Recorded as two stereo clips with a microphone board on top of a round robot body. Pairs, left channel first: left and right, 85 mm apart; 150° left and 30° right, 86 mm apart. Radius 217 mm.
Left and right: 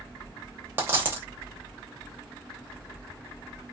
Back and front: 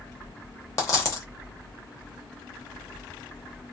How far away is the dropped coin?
About 0.8 m.